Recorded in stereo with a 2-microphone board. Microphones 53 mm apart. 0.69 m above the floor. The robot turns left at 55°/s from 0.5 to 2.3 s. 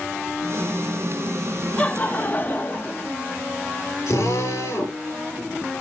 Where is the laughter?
20° left (ahead or behind), 1.2 m; by 3.1 s 35° left (ahead or behind), 1.2 m.